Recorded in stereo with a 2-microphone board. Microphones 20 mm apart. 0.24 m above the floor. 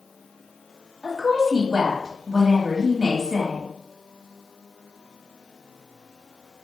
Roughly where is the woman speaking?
Right.